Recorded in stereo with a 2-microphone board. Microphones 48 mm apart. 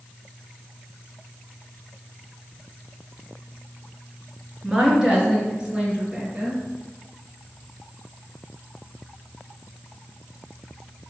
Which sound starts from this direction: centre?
A woman speaking, at 4.6 s.